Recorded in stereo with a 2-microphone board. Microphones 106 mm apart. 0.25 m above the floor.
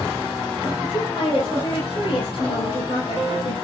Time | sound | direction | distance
0.8 | a woman speaking | 50° left (ahead or behind) | 9.5 m